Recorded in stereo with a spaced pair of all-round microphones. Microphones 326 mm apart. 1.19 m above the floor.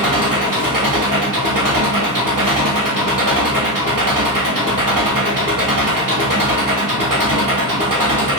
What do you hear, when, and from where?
0.0 s an engine running: 75° right (ahead or behind), 1.7 m